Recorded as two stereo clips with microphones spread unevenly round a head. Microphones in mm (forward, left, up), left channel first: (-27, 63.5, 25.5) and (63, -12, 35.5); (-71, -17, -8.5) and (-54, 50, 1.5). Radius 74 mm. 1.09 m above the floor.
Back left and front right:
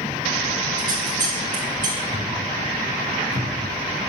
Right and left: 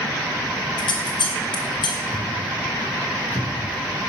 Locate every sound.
0.8 s scissors: 100° right, 2.5 m
2.1 s a thud: 175° right, 5 m